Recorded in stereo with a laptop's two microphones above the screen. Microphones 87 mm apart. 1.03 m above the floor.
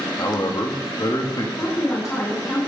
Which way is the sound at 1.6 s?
40° left (ahead or behind).